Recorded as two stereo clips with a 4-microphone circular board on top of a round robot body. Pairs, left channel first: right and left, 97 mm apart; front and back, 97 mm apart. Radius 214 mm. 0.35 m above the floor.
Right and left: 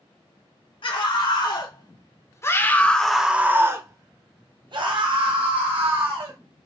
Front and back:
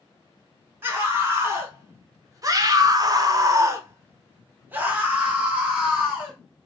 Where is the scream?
115° right, 1.8 m; by 6.4 s 100° left, 2 m.